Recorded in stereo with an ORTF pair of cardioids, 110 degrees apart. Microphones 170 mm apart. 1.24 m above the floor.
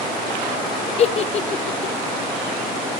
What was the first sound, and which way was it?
A giggle, 40° left.